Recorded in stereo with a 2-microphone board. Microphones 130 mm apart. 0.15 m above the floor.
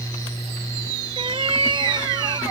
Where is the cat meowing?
50° right (ahead or behind); by 2.4 s 35° right (ahead or behind).